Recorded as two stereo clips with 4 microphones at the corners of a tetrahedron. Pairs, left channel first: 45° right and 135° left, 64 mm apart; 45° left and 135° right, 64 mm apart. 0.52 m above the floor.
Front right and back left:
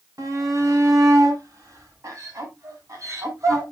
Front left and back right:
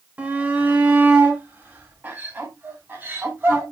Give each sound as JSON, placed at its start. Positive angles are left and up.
{"t": 0.2, "sound": "a shout", "azimuth_deg": 155, "distance_m": 2.0}